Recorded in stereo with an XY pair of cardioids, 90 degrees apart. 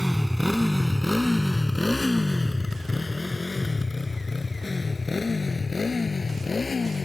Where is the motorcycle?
Straight ahead; by 7.1 s 35° left.